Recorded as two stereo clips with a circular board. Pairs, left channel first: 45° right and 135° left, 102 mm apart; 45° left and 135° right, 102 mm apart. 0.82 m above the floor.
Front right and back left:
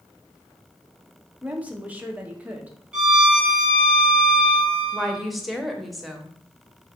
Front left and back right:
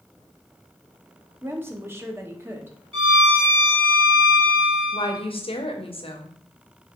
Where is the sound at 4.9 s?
45° left, 0.7 m.